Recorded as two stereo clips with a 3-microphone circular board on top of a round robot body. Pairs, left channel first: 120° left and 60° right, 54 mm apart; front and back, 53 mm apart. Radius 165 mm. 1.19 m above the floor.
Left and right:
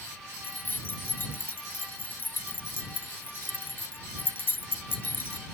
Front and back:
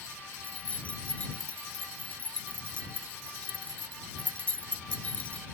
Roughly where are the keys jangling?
Ahead left.